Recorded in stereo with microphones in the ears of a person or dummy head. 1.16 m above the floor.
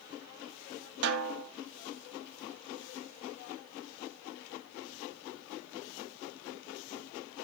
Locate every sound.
1.0 s a snare drum: 55° right (ahead or behind), 2 m